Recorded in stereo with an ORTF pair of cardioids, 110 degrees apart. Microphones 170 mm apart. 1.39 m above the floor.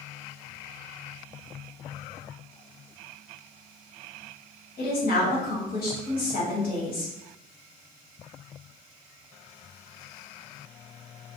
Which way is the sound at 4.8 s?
55° left.